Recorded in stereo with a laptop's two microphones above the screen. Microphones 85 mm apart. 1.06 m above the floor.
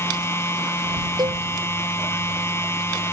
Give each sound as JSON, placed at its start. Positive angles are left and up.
{"t": 0.0, "sound": "a machine running", "side_deg": 30}
{"t": 1.2, "sound": "a cowbell", "side_deg": -55}